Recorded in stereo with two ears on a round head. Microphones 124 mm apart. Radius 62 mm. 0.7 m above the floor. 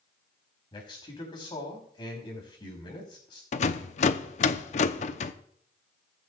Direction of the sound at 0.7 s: 35° left (ahead or behind).